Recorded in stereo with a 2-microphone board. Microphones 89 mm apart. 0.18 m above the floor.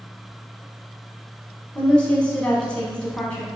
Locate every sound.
1.8 s a woman speaking: 15° left (ahead or behind), 1.0 m